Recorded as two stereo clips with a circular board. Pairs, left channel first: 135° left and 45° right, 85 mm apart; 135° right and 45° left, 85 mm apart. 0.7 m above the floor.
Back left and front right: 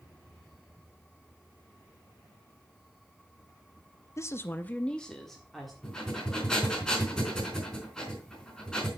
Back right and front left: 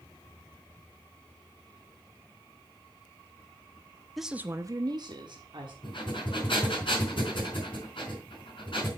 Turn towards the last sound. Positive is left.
turn(degrees=-145)